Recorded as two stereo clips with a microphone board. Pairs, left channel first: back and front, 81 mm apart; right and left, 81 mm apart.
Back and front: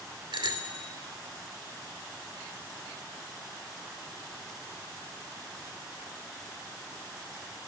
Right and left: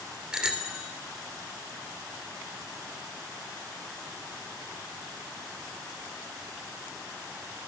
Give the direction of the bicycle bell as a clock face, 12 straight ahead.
12 o'clock.